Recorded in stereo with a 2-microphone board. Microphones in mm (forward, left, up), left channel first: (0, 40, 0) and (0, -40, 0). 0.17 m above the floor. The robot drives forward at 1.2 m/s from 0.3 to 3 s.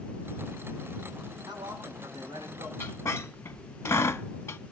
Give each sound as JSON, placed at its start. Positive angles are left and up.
{"t": 1.5, "sound": "a man speaking", "side_deg": -65, "distance_m": 8.5}
{"t": 2.8, "sound": "a squeak", "side_deg": 30, "distance_m": 0.5}